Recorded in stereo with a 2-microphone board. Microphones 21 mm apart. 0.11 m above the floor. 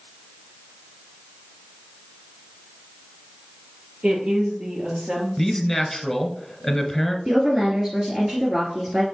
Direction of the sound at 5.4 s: 10° left (ahead or behind).